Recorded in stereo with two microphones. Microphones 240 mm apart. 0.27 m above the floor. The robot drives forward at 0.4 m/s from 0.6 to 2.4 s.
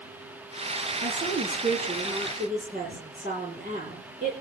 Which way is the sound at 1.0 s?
35° right (ahead or behind).